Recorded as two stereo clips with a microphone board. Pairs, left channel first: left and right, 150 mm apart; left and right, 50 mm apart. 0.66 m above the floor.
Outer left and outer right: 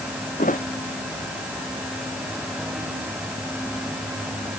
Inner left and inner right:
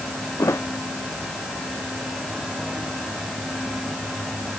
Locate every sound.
0.4 s a thud: 65° left (ahead or behind)